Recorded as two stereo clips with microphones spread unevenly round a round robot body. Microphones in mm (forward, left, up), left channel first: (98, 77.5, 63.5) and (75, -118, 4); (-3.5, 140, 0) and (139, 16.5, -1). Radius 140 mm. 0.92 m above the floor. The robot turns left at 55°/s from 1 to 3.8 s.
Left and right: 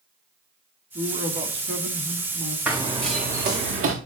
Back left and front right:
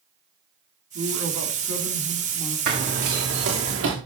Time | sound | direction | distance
0.9 | a man speaking | 45° right | 2.5 m
2.7 | running footsteps | 10° right | 3.5 m